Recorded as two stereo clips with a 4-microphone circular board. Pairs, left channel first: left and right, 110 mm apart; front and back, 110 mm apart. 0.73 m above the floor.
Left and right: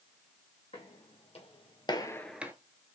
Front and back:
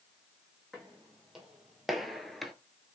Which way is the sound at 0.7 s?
95° left.